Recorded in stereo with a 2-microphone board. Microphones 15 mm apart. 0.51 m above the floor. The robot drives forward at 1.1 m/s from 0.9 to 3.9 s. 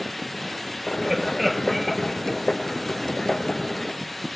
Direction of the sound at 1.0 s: 5° right (ahead or behind).